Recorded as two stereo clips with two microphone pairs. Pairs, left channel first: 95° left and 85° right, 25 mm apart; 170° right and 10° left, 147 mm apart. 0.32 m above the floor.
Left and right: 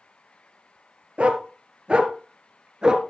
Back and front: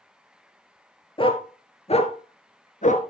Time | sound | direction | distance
1.2 | a dog barking | 120° right | 2 m